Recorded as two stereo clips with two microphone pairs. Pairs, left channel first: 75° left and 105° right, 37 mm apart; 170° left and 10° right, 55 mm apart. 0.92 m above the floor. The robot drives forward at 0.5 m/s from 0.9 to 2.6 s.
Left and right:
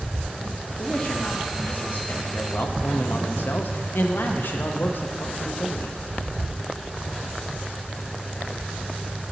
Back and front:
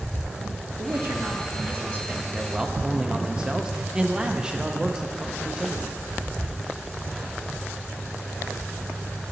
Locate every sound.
0.8 s a man speaking: 25° left, 1.3 m; by 6.0 s 60° left, 0.7 m